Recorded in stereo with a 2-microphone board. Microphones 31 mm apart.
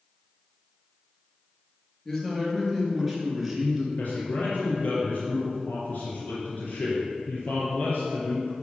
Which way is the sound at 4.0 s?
50° left (ahead or behind).